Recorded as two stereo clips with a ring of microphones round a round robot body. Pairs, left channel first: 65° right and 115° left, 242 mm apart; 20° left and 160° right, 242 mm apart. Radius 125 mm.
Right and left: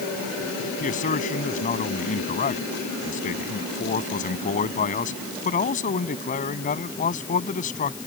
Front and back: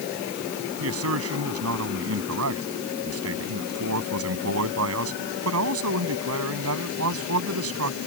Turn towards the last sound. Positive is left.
turn(degrees=-125)